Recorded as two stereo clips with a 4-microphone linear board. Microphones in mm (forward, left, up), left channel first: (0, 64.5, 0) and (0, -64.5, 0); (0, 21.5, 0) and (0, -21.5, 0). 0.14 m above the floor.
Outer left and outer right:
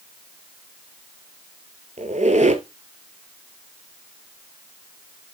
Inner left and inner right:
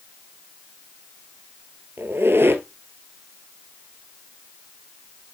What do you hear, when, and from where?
2.0 s a squeak: 70° right (ahead or behind), 1.1 m